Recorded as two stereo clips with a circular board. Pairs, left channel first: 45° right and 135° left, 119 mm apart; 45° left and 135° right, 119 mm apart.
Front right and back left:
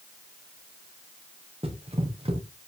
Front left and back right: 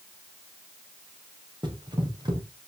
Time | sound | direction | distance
1.6 | running footsteps | 175° left | 4.5 m